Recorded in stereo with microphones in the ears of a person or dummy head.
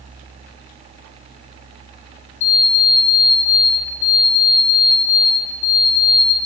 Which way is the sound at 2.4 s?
35° left (ahead or behind).